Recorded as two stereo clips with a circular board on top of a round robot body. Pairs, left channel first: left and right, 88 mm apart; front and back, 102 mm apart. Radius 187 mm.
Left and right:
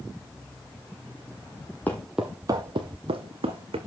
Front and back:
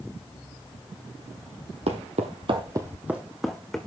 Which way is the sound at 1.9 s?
165° left.